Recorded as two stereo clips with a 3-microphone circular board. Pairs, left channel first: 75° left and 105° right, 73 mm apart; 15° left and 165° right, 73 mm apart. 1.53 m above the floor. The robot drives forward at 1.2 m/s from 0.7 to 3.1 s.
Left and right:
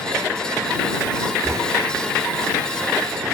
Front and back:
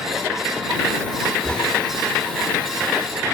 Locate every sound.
1.4 s knocking: 60° right; by 1.7 s 65° right